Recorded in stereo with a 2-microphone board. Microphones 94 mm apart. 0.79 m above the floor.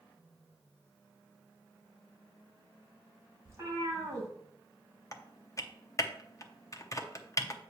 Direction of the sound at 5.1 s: 35° left (ahead or behind).